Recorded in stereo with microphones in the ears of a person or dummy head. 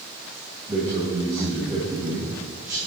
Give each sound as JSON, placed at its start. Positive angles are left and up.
{"t": 0.7, "sound": "a man speaking", "side_deg": -15, "distance_m": 1.9}